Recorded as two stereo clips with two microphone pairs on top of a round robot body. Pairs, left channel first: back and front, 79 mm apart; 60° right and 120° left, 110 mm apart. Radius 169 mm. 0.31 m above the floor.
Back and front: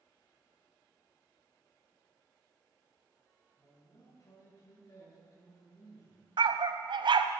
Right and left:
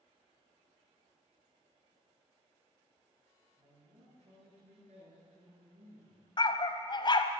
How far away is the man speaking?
About 6.5 m.